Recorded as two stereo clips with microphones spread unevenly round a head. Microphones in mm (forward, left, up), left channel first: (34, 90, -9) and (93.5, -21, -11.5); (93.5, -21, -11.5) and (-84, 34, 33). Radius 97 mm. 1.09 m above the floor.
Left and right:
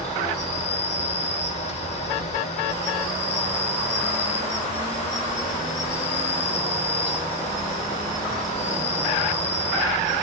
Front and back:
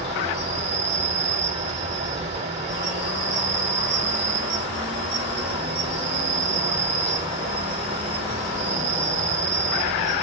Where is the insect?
100° left, 1.7 m.